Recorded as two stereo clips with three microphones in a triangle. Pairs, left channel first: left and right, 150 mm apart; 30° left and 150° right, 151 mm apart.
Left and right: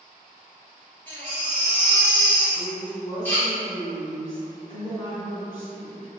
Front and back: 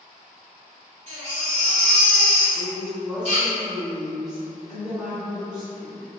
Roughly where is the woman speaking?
Behind left.